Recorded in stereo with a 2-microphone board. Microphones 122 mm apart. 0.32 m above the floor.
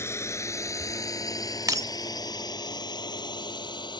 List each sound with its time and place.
0.0 s a drone: 20° left (ahead or behind); by 4.0 s 35° left (ahead or behind)
1.7 s breaking glass: 30° right (ahead or behind)